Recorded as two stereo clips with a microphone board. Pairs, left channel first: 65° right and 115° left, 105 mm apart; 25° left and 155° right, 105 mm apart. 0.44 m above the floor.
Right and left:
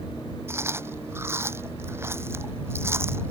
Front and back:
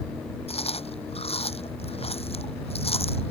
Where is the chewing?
45° left.